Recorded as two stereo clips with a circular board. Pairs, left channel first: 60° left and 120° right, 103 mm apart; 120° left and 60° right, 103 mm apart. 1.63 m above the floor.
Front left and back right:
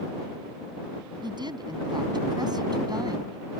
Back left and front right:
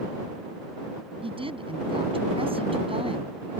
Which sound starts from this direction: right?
A woman speaking, at 1.2 s.